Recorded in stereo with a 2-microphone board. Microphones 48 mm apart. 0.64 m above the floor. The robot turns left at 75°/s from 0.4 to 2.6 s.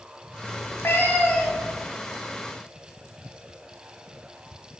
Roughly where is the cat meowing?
Left.